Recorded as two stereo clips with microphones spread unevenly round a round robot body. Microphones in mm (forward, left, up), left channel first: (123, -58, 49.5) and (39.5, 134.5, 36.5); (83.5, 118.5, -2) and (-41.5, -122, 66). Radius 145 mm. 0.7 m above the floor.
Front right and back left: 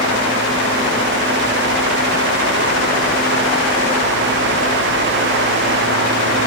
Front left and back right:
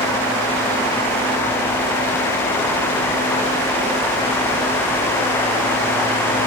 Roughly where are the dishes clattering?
I don't hear dishes clattering.